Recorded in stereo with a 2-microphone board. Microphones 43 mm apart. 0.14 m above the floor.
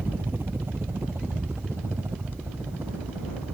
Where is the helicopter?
55° right (ahead or behind); by 3.5 s 70° right (ahead or behind).